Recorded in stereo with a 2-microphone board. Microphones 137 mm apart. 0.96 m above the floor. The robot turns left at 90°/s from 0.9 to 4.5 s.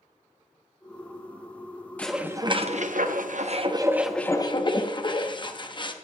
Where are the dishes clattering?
10° left, 0.8 m; by 5.9 s 145° left, 0.8 m.